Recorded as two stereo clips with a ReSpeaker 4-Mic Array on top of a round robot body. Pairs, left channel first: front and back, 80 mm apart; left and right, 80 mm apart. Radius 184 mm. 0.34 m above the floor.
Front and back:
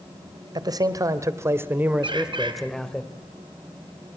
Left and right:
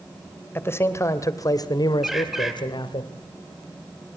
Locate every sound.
0.6 s a man speaking: 150° left, 2.5 m; by 3.0 s 80° left, 2 m
2.0 s a bird: 175° right, 3.5 m